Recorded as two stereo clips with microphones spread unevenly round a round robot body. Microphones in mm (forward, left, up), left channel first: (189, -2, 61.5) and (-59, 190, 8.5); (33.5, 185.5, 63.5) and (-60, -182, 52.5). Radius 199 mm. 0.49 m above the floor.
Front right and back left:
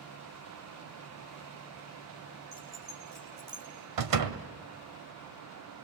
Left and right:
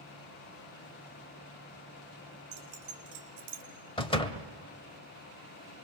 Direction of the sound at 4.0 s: 155° left.